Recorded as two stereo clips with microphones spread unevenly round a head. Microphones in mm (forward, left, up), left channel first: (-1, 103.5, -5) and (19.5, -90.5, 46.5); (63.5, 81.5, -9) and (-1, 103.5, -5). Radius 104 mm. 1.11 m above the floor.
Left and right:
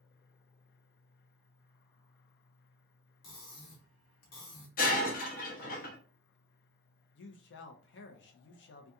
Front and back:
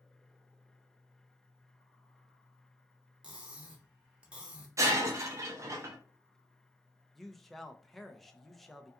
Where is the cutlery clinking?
85° left, 1.1 m.